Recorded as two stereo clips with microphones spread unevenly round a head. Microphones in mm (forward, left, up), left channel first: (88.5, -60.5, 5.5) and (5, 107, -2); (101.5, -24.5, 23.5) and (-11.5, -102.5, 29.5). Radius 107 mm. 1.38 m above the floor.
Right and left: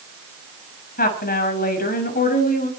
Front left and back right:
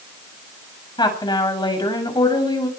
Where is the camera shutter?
No camera shutter in this recording.